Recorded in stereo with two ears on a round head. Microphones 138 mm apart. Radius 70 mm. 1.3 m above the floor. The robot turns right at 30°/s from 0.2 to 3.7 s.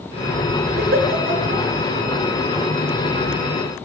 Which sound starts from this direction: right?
A giggle, at 0.8 s.